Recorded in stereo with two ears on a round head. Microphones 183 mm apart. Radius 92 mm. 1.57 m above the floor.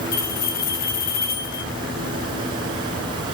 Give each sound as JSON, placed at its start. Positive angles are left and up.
{"t": 0.1, "sound": "a bell", "side_deg": 50, "distance_m": 0.7}